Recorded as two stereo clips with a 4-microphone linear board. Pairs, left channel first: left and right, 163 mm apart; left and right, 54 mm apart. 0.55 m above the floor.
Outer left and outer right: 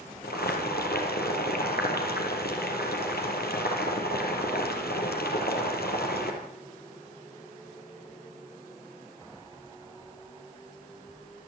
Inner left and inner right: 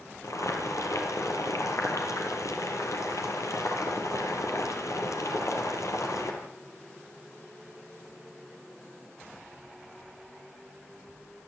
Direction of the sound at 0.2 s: 85° left.